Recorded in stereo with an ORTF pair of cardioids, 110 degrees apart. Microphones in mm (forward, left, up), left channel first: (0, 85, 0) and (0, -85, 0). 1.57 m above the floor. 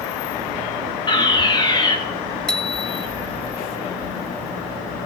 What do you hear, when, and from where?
1.1 s a fire alarm: 30° left, 4 m
2.5 s a bicycle bell: 5° left, 2 m